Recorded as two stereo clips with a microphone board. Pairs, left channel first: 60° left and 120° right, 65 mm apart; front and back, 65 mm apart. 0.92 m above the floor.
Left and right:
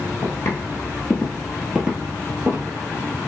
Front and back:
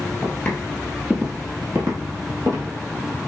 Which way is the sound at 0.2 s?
55° left.